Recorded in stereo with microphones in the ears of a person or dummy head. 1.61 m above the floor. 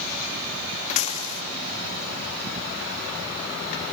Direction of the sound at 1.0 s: 45° left (ahead or behind).